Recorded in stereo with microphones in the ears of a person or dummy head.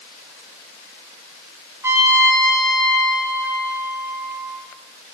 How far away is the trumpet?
About 0.7 m.